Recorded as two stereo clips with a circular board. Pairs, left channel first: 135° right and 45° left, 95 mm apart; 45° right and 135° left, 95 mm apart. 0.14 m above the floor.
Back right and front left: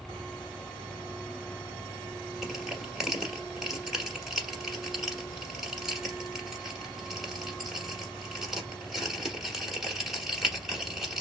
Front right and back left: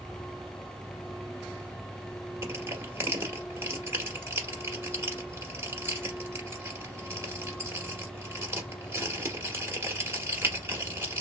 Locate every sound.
2.4 s crushing: 125° left, 1.1 m